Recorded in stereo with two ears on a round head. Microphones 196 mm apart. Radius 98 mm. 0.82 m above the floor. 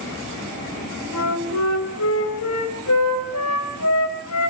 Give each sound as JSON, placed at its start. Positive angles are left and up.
{"t": 1.1, "sound": "a flute", "side_deg": 85, "distance_m": 2.5}